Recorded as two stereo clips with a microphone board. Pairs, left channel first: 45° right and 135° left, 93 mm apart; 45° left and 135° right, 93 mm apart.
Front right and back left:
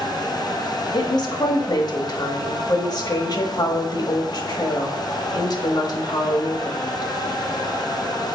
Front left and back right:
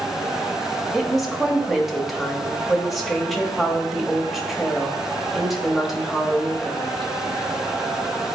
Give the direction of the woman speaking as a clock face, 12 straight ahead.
2 o'clock.